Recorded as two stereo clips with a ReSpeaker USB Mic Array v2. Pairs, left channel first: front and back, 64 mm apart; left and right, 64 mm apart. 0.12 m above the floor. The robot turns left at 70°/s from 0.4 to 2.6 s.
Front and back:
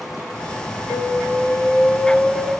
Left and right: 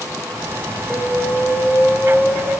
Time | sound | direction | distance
0.9 | an alarm | 15° right | 3 m